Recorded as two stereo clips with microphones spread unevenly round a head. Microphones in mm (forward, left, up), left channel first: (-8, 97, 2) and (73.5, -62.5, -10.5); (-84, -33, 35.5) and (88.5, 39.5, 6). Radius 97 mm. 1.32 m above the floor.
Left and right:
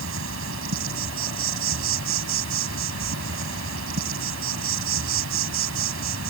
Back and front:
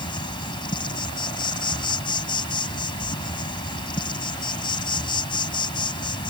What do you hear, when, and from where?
0.0 s an insect: 90° right